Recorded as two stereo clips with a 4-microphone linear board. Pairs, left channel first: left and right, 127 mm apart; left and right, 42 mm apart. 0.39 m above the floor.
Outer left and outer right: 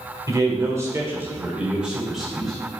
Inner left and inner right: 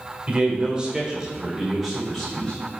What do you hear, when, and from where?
0.3 s a man speaking: 25° right (ahead or behind), 1.4 m; by 2.5 s 5° left (ahead or behind), 1.8 m